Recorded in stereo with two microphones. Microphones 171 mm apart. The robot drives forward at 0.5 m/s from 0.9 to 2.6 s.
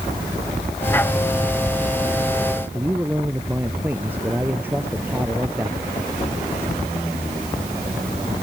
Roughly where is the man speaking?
Centre.